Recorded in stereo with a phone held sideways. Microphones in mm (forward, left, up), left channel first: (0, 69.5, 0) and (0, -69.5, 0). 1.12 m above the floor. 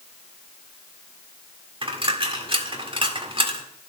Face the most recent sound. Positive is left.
turn(degrees=-40)  # may be behind; listen again after turning